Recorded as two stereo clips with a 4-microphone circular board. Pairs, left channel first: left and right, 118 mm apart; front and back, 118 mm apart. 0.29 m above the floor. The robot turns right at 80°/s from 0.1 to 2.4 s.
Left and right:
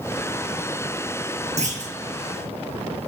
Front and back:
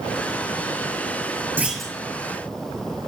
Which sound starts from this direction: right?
A clunk, at 1.6 s.